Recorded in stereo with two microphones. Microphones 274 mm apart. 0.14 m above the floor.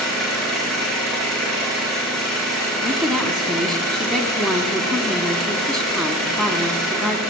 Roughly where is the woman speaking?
Centre.